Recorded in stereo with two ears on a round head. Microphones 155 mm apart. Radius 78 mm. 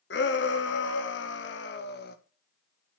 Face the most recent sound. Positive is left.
turn(degrees=60)  # may be behind; listen again after turning